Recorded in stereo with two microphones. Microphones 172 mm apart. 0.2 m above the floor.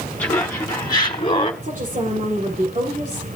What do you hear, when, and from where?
0.2 s laughter: 15° left (ahead or behind), 1.6 m; by 1.5 s 35° left (ahead or behind), 1.2 m
1.6 s a woman speaking: 50° right (ahead or behind), 7 m